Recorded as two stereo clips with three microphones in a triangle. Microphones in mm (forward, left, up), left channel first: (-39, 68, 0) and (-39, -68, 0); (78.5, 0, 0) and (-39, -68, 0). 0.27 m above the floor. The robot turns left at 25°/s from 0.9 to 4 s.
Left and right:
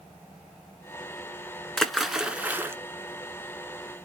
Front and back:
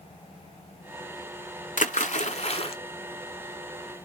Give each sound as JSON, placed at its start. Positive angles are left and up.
{"t": 1.8, "sound": "a splash", "azimuth_deg": 5, "distance_m": 0.5}